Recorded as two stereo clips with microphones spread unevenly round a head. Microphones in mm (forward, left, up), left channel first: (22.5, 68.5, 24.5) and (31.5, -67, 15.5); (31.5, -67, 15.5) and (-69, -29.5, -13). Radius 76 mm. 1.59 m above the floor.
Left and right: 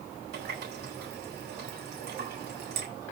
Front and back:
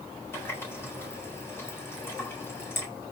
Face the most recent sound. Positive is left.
turn(degrees=-85)